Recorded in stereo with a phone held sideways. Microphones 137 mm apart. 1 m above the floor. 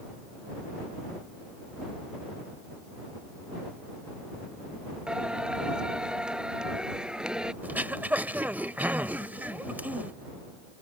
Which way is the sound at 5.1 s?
5° right (ahead or behind).